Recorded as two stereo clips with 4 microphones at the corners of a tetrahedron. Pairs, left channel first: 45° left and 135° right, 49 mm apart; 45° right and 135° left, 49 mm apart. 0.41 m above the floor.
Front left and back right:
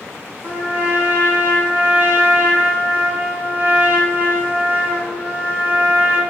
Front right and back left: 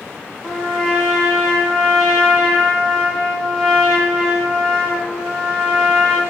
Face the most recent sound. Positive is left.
turn(degrees=-130)